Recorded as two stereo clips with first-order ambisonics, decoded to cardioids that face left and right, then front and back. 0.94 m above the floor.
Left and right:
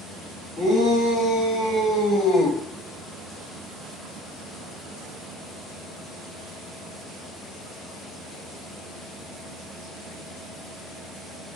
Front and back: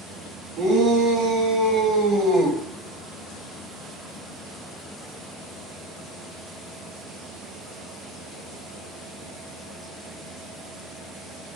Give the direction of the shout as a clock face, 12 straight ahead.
7 o'clock.